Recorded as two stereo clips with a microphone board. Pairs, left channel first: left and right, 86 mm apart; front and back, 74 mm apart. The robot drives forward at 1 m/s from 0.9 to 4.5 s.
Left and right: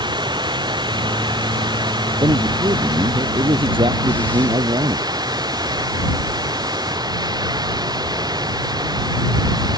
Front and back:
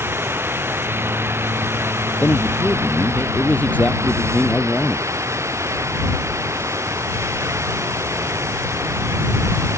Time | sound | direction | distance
0.0 | running water | 120° right | ?
2.2 | a man speaking | 65° right | ?